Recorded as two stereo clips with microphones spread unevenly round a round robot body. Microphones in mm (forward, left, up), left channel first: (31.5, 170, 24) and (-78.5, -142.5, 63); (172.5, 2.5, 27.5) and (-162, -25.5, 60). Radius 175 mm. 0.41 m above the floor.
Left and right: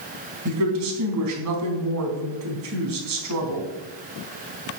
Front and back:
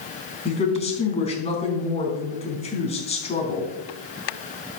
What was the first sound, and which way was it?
A woman speaking, 65° right.